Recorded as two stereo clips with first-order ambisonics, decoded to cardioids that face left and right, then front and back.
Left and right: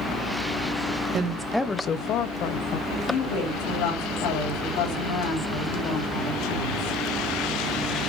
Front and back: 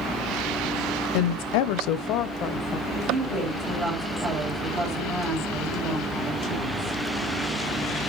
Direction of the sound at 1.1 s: 30° right.